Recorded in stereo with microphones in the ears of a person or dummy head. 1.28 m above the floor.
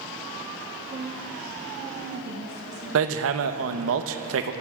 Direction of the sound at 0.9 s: 35° right (ahead or behind).